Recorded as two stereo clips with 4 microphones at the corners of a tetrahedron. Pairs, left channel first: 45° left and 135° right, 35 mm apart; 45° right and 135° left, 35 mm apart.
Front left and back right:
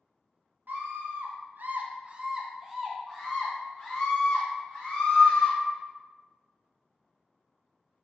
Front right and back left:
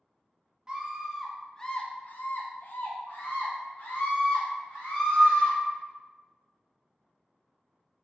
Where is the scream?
160° right, 0.7 m; by 5.6 s 30° right, 2 m.